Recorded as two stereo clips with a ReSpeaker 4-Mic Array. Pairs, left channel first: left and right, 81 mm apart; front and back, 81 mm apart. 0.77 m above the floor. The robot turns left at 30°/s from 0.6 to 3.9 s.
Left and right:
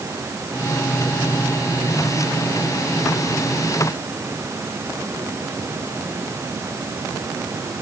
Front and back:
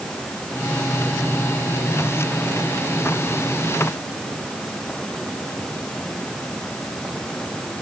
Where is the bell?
I don't hear a bell.